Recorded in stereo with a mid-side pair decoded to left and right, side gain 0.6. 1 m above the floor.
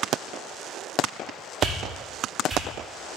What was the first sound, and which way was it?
A whoosh, 30° right.